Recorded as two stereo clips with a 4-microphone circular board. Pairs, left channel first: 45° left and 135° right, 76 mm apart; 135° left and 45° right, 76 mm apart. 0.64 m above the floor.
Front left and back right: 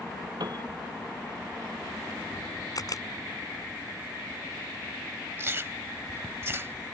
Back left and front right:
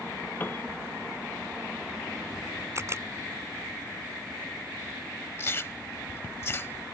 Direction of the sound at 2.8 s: 10° left.